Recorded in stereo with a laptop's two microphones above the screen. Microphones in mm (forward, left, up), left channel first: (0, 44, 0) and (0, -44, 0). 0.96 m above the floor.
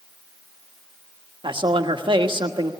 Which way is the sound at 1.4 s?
70° right (ahead or behind).